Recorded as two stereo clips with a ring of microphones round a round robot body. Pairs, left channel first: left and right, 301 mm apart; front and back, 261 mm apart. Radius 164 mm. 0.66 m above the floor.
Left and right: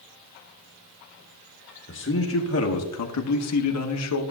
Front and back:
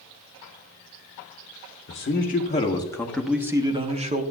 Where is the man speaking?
45° left, 1.1 m; by 4.2 s 120° left, 1.1 m.